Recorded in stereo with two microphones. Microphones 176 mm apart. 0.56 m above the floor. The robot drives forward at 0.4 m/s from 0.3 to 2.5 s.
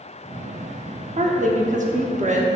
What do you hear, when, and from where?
1.2 s a woman speaking: 40° right (ahead or behind), 0.9 m; by 2.5 s 45° right (ahead or behind), 0.9 m